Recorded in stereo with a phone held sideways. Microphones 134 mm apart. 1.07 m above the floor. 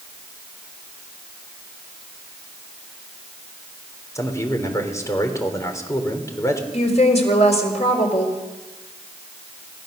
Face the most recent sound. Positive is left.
turn(degrees=55)  # may be behind; listen again after turning